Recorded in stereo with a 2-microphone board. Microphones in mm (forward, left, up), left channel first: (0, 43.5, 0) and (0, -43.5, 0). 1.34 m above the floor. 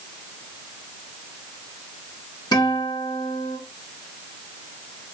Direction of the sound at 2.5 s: 55° left (ahead or behind).